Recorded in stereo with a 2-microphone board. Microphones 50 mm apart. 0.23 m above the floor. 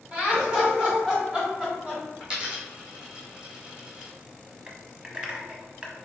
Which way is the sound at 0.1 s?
25° right (ahead or behind).